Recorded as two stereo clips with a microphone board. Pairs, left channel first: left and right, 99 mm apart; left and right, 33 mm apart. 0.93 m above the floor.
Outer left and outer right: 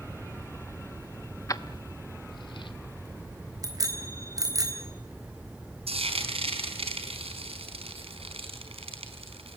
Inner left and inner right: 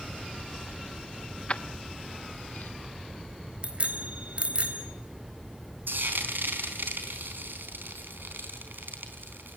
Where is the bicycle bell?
35° right (ahead or behind), 3.5 m.